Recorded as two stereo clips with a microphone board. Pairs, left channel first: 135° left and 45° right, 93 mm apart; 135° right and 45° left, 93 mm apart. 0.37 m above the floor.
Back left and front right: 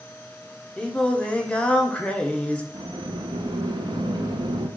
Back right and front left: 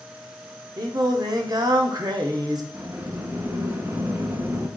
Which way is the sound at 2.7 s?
15° right.